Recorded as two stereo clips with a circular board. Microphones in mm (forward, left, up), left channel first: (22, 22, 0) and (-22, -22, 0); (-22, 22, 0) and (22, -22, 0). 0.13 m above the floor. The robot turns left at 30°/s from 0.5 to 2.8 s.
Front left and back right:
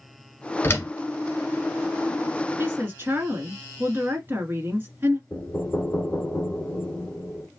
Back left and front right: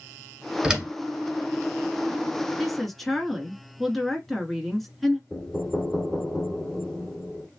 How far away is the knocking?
About 0.9 m.